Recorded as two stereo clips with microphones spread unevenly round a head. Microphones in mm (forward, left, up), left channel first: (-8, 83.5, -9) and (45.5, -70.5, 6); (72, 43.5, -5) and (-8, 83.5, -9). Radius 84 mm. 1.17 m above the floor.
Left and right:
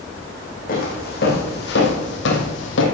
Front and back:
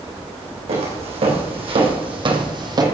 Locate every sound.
0.7 s footsteps: 155° left, 4 m; by 2.9 s 110° left, 2.5 m